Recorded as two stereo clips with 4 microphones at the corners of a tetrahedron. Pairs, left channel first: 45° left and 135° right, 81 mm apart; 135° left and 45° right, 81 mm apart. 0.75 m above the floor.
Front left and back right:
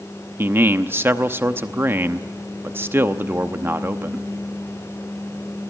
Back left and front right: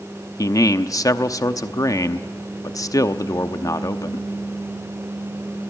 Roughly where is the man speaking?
Behind.